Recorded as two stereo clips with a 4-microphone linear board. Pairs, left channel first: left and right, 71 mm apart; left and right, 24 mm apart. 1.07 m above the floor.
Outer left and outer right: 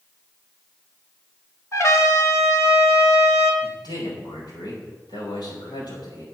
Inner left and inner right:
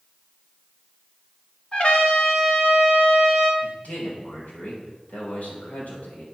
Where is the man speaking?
75° left (ahead or behind), 5 m.